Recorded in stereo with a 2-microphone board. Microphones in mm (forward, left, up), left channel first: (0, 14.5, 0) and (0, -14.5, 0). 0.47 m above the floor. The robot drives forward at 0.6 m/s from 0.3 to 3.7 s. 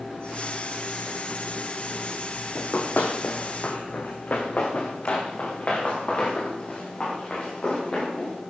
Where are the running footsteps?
55° left (ahead or behind), 1.7 m; by 8.3 s 30° left (ahead or behind), 6 m.